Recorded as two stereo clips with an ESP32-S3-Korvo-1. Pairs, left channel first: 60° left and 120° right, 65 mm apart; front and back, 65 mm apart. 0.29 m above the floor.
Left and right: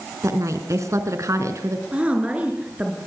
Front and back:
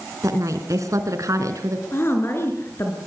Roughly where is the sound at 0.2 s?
Behind right.